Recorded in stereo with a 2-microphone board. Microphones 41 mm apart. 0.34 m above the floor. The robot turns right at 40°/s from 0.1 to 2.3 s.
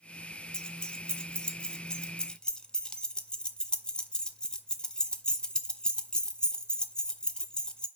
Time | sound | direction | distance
0.5 | keys jangling | 20° left (ahead or behind) | 0.5 m